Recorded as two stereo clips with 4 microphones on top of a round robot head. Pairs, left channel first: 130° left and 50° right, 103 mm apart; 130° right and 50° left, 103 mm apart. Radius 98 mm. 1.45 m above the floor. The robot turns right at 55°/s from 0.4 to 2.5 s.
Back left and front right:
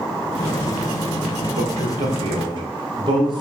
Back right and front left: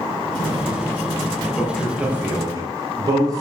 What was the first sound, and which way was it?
A man speaking, 60° right.